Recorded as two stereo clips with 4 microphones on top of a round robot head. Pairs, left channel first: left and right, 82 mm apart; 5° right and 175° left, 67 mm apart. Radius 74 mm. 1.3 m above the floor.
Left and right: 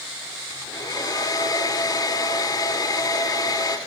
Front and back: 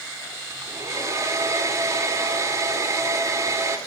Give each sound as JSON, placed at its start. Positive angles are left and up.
{"t": 0.5, "sound": "a hair dryer", "azimuth_deg": 130, "distance_m": 4.0}